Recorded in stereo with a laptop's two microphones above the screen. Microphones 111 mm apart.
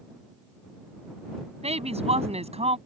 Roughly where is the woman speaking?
Right.